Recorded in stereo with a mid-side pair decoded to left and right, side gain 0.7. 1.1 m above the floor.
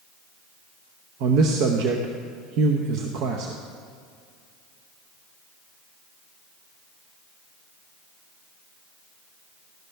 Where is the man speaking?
60° right, 0.9 m.